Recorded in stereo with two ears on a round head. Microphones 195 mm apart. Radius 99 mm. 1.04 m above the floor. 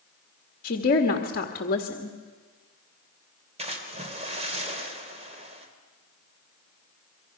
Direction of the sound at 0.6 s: 45° left (ahead or behind).